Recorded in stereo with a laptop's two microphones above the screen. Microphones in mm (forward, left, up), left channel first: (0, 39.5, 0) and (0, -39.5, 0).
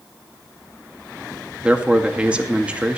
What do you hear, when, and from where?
1.6 s a man speaking: 15° right (ahead or behind), 1.8 m